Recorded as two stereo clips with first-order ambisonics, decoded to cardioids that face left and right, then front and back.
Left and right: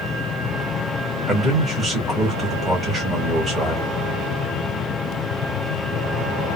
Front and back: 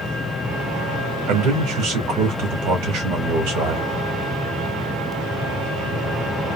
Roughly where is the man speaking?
Behind.